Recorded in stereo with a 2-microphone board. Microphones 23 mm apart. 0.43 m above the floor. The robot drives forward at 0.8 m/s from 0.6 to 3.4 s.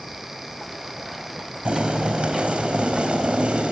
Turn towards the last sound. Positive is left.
turn(degrees=-65)  # may be behind; listen again after turning